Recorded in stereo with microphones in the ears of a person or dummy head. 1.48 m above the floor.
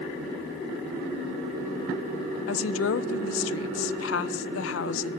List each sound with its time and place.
2.5 s a woman speaking: 85° left, 0.7 m